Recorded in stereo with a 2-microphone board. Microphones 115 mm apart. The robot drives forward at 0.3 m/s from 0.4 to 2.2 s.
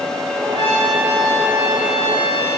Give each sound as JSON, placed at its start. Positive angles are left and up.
{"t": 0.5, "sound": "a trumpet", "side_deg": 55, "distance_m": 3.5}